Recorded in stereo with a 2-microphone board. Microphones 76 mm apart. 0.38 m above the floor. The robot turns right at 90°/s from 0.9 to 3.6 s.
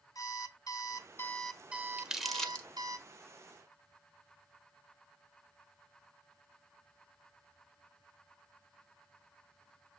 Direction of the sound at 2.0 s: 15° right (ahead or behind).